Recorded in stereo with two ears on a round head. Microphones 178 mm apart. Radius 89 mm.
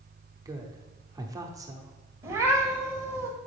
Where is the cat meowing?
15° right (ahead or behind), 1.3 m.